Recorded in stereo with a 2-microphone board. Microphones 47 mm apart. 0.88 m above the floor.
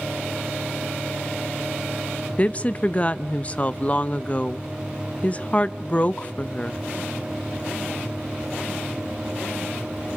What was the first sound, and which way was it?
A woman speaking, 25° left (ahead or behind).